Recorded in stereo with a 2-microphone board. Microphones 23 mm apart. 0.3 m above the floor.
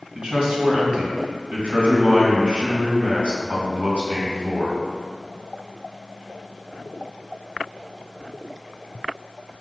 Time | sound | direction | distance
0.1 | a man speaking | 55° right (ahead or behind) | 3 m